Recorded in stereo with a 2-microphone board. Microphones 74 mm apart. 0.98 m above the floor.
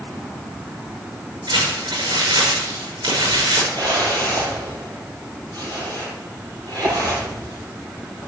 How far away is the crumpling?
About 7.5 m.